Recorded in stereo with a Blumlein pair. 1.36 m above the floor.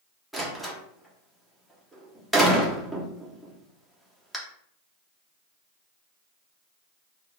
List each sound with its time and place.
0.3 s a door slam: 5° right, 0.8 m